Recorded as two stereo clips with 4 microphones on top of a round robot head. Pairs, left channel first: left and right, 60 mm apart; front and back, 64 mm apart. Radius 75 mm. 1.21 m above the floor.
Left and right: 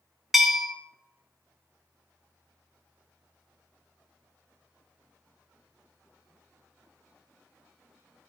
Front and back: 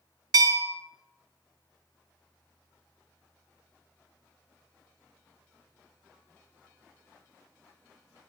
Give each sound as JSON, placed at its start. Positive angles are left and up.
{"t": 0.3, "sound": "a bell", "azimuth_deg": -175, "distance_m": 0.7}